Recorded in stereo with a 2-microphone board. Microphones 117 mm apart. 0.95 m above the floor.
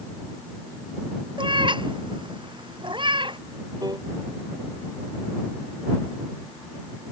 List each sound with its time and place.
1.4 s a cat meowing: 40° right (ahead or behind)
3.8 s a piano: 35° right (ahead or behind)